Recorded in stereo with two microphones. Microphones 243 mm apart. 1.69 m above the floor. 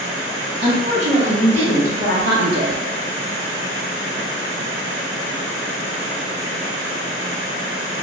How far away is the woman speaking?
About 1.9 m.